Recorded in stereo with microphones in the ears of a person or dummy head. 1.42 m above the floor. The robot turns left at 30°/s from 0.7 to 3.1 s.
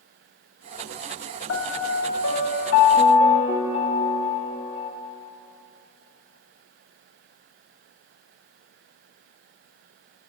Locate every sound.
1.5 s a piano: 85° left, 1.3 m; by 4.9 s 35° left, 1.3 m